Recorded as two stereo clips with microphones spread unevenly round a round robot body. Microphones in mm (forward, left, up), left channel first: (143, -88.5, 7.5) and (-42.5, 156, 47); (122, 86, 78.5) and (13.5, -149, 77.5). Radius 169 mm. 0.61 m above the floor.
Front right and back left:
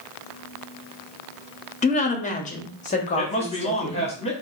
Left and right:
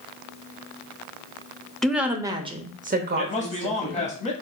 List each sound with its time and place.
1.8 s a woman speaking: 25° right, 1.0 m; by 4.1 s 115° right, 1.3 m
3.2 s a man speaking: 10° left, 1.5 m